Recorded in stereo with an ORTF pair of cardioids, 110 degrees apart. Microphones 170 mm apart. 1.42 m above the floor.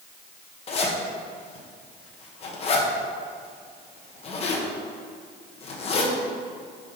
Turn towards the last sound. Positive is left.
turn(degrees=35)